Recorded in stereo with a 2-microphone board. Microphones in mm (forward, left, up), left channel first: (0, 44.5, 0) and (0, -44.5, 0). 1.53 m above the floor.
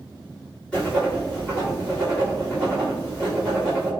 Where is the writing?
10° left (ahead or behind), 1.9 m.